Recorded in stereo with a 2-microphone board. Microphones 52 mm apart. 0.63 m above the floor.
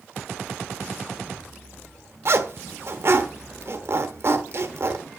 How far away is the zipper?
About 1.1 m.